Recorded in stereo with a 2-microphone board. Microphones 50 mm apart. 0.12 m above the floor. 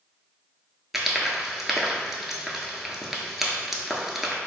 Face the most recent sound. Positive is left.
turn(degrees=-5)  # may be behind; listen again after turning